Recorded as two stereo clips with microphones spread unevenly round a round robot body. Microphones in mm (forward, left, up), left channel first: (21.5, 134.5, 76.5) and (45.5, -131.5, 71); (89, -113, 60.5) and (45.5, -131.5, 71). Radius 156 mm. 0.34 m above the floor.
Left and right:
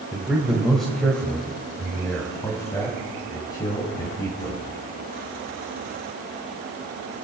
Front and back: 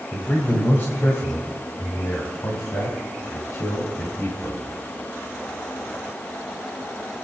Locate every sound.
0.1 s a man speaking: straight ahead, 2 m; by 4.7 s 20° left, 4 m